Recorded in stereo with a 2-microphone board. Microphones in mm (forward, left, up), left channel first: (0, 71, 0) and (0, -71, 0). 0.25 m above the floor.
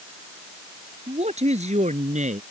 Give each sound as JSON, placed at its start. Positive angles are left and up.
{"t": 1.1, "sound": "a man speaking", "side_deg": -50}